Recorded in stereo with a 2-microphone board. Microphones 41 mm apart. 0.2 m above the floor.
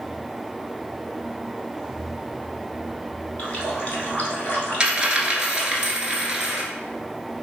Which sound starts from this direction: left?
A running tap, at 3.4 s.